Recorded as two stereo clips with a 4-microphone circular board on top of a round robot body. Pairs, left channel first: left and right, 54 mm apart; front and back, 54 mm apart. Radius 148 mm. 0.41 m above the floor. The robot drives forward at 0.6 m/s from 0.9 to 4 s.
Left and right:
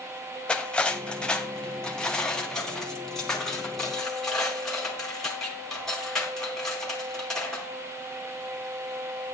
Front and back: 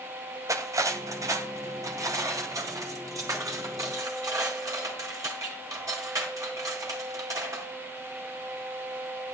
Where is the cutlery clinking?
165° left, 1.8 m; by 7.7 s 170° left, 3.5 m.